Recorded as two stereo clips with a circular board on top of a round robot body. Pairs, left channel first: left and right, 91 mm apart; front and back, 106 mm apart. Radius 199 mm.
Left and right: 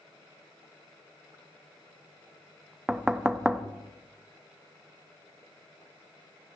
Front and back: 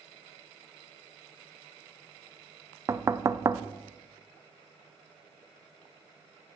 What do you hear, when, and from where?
2.9 s knocking: 165° right, 0.5 m